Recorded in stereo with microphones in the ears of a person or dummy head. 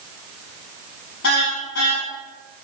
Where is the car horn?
65° left (ahead or behind), 7 m.